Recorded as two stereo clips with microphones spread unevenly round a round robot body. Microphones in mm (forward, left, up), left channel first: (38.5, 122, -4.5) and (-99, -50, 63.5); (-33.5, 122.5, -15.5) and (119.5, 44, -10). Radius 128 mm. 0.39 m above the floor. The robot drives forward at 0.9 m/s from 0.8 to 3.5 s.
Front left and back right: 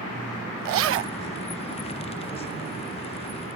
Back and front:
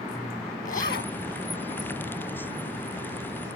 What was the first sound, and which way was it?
A zipper, 150° right.